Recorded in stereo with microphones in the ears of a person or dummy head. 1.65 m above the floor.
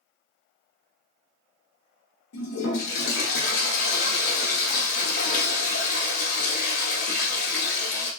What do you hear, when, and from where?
2.3 s a toilet flushing: 90° left, 1.0 m